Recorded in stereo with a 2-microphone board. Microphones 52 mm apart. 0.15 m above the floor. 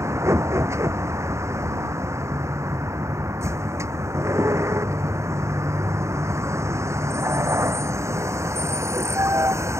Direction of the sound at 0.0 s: 70° right (ahead or behind).